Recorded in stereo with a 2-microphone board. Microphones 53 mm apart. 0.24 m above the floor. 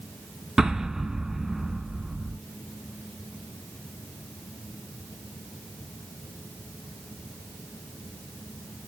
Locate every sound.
0.6 s an explosion: 10° right (ahead or behind), 0.8 m